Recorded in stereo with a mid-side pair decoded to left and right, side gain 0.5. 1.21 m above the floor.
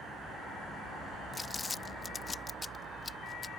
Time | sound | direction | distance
1.3 | crumpling | 20° left | ?